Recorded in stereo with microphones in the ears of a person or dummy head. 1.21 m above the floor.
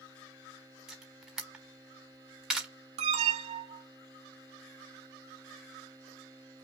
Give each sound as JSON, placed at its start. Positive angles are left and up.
{"t": 0.9, "sound": "a camera shutter", "side_deg": -5, "distance_m": 1.0}
{"t": 3.0, "sound": "an alarm", "side_deg": -35, "distance_m": 1.0}